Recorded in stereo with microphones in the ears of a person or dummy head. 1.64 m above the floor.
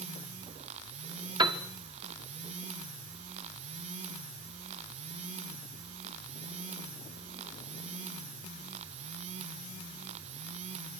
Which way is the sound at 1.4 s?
25° right (ahead or behind).